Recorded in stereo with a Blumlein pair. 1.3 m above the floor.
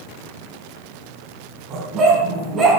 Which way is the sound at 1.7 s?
30° right.